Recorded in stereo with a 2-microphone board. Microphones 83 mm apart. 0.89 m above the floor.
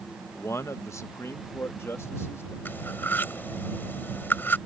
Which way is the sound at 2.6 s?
25° left (ahead or behind).